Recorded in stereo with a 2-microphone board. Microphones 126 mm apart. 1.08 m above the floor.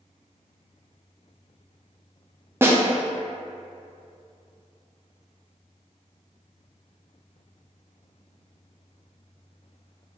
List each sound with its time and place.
2.6 s a snare drum: 20° right (ahead or behind), 0.6 m